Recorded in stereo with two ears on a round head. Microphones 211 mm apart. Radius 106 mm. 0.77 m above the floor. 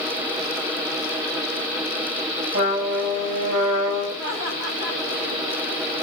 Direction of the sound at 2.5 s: 30° right (ahead or behind).